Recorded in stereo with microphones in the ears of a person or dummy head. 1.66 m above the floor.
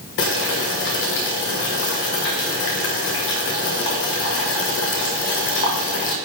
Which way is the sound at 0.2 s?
60° left (ahead or behind).